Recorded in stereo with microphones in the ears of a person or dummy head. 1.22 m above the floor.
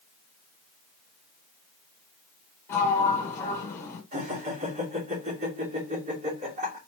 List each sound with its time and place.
2.7 s a sliding door: 10° left (ahead or behind), 1.6 m
4.1 s laughter: 50° right (ahead or behind), 3 m